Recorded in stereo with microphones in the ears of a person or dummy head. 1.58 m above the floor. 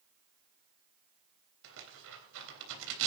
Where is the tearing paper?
70° right (ahead or behind), 3.5 m.